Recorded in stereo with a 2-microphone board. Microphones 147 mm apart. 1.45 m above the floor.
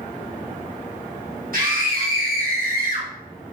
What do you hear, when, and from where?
1.5 s a scream: 70° right (ahead or behind), 2.5 m; by 3.1 s 65° right (ahead or behind), 3 m